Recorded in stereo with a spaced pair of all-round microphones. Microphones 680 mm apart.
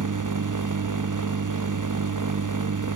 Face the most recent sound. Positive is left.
turn(degrees=-30)  # may be behind; listen again after turning